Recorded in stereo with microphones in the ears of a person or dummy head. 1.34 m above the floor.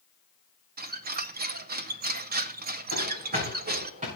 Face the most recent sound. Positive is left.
turn(degrees=-35)  # may be behind; listen again after turning